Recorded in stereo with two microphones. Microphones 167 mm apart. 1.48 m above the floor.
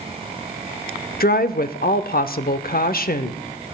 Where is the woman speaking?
70° left (ahead or behind), 0.7 m.